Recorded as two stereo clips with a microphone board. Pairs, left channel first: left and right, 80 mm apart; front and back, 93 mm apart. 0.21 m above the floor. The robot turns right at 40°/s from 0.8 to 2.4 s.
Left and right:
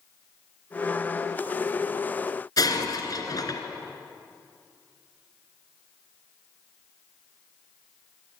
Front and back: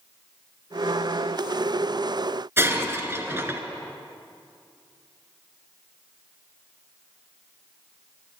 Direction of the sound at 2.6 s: 115° left.